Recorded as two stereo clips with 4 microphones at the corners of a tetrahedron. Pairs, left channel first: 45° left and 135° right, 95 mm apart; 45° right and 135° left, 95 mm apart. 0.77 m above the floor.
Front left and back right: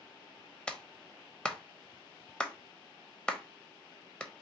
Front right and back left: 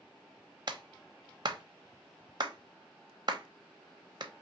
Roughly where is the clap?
Behind left.